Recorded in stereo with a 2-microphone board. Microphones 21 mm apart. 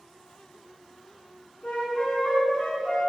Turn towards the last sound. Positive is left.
turn(degrees=50)  # may be behind; listen again after turning